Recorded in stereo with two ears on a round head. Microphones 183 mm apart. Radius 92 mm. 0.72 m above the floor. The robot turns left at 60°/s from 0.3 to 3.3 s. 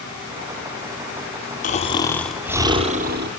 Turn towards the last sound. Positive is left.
turn(degrees=-60)